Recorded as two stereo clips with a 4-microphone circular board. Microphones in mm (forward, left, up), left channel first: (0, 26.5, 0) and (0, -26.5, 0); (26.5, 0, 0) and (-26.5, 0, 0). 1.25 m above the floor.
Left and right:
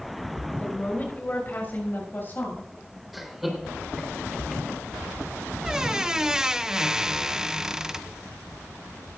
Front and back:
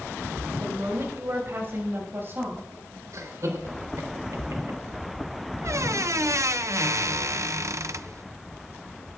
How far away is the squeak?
About 0.5 m.